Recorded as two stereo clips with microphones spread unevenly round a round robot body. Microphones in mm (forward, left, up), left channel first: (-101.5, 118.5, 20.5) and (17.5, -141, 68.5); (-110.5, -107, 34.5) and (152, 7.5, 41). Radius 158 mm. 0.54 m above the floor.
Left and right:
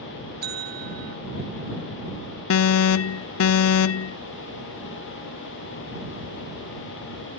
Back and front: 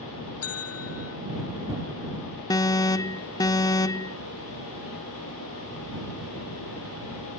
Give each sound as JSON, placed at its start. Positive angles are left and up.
{"t": 0.4, "sound": "a bell", "azimuth_deg": -120}
{"t": 2.5, "sound": "an alarm", "azimuth_deg": 130}